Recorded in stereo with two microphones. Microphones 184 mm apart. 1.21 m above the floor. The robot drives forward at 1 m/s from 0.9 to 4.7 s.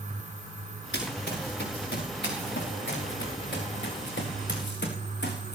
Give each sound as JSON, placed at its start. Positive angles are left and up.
{"t": 0.9, "sound": "running footsteps", "side_deg": 75, "distance_m": 5.5}